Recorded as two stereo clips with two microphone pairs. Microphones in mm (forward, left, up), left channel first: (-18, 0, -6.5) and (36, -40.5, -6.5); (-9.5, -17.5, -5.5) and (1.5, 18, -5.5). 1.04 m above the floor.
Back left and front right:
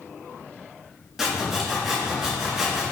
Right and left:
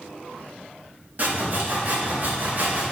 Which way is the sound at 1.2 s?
45° left.